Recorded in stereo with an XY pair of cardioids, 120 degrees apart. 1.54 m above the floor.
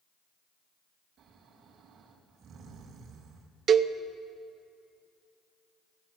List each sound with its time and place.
1.2 s snoring: 60° right, 2.5 m
3.7 s a cowbell: 50° right, 0.6 m